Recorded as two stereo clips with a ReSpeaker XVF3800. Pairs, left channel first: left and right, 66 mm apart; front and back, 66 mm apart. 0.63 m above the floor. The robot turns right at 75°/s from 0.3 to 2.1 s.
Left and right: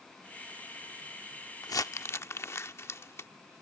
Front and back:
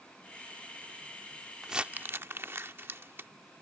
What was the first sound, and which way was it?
Crumpling, 95° left.